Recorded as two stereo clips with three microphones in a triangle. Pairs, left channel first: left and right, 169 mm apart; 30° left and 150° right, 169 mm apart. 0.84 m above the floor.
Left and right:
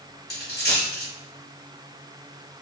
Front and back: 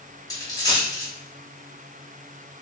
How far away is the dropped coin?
About 1.0 m.